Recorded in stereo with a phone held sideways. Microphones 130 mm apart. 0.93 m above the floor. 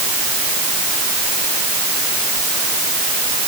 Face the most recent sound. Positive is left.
No sound to turn to.